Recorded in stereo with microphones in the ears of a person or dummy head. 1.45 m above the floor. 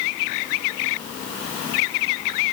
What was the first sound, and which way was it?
Only background noise.